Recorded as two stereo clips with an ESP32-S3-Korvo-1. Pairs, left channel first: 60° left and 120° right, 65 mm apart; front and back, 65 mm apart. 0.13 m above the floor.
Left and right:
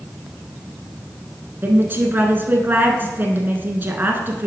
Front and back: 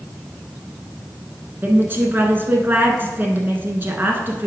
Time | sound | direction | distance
1.6 | a woman speaking | 155° right | 1.3 m